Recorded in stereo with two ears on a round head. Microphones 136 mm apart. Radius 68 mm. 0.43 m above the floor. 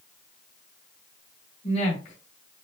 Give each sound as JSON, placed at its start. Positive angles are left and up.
{"t": 1.6, "sound": "a woman speaking", "side_deg": 45, "distance_m": 1.6}